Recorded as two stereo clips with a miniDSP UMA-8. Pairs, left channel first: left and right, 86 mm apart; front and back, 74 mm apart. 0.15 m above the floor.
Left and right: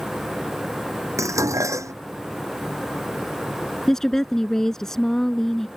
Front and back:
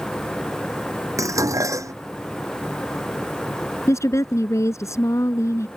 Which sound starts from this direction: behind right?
Dishes clattering, at 1.2 s.